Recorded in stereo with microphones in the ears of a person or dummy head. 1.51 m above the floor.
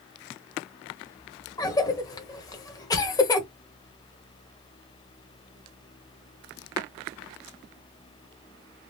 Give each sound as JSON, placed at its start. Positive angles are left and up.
{"t": 1.6, "sound": "a cough", "side_deg": 15, "distance_m": 0.9}